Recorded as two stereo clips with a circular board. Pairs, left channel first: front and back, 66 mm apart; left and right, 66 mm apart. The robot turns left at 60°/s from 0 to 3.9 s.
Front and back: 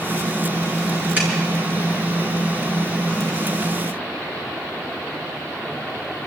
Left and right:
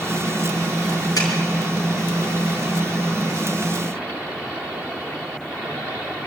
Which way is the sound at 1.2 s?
115° left.